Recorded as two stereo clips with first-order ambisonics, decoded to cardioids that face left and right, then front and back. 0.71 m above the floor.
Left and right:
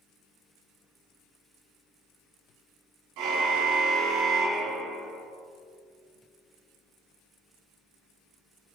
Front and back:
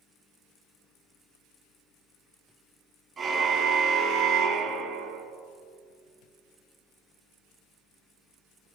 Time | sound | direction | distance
3.2 | a car horn | 110° right | 3 m